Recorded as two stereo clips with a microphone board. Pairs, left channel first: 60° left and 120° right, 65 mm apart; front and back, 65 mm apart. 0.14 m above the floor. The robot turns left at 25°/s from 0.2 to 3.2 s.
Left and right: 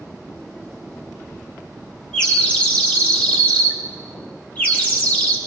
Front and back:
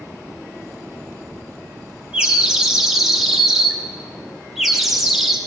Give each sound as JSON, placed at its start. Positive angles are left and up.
{"t": 2.1, "sound": "a bird", "azimuth_deg": 130, "distance_m": 1.2}